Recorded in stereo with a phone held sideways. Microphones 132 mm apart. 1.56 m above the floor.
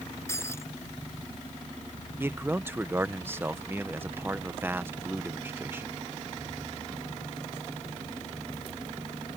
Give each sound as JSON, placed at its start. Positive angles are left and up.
{"t": 0.3, "sound": "breaking glass", "side_deg": 20}
{"t": 2.2, "sound": "a man speaking", "side_deg": -15}